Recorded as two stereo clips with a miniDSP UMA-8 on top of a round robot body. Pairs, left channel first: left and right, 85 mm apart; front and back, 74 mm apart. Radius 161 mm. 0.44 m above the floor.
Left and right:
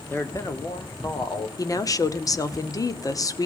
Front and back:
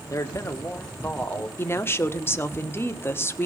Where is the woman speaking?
50° left, 1.6 m.